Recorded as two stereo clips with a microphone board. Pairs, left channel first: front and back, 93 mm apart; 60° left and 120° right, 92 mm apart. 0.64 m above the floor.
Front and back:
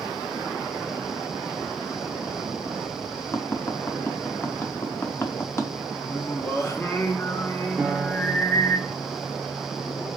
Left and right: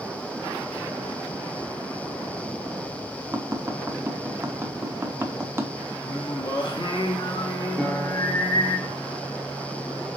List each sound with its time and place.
3.3 s tapping: 60° right, 0.6 m
6.0 s singing: 55° left, 0.7 m
7.8 s a piano: 145° left, 0.8 m